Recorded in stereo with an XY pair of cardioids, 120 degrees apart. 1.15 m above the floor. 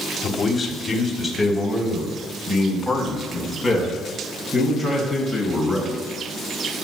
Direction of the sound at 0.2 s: 20° left.